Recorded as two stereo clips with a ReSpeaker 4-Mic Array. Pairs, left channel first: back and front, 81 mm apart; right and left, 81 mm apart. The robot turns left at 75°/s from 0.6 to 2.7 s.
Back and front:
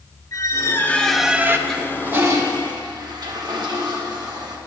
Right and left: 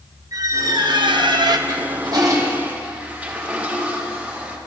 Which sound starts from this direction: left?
A toilet flushing, at 1.7 s.